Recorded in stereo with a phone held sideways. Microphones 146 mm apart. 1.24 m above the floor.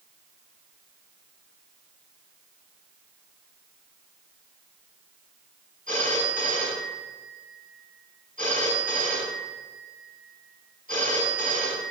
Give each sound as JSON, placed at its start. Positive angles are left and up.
{"t": 5.9, "sound": "a phone ringing", "side_deg": -70, "distance_m": 5.0}